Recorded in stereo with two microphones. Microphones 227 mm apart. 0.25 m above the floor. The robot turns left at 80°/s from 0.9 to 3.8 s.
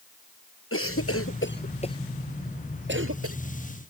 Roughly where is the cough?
Left.